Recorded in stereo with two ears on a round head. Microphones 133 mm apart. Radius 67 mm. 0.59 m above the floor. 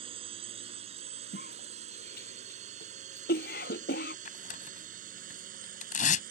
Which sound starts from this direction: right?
A drone, at 0.0 s.